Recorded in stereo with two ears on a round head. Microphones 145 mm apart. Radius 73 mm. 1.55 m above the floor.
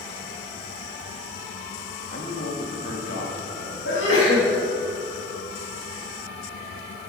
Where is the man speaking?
50° left (ahead or behind), 2 m; by 3.8 s 80° left, 3.5 m.